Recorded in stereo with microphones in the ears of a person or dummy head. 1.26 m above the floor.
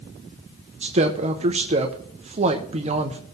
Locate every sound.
0.8 s a woman speaking: 35° right (ahead or behind), 0.8 m